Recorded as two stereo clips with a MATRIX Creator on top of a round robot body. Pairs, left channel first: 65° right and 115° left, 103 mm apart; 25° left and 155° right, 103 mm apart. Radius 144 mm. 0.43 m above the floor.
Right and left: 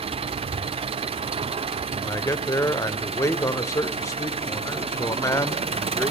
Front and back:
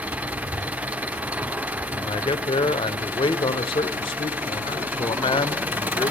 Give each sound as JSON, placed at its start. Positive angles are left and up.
{"t": 0.0, "sound": "an engine running", "azimuth_deg": 130, "distance_m": 1.1}
{"t": 1.9, "sound": "a man speaking", "azimuth_deg": -10, "distance_m": 2.5}